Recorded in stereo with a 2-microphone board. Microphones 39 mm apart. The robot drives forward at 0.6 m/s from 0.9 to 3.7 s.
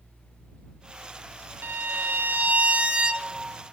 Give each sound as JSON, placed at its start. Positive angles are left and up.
{"t": 1.6, "sound": "a violin", "side_deg": -70, "distance_m": 0.5}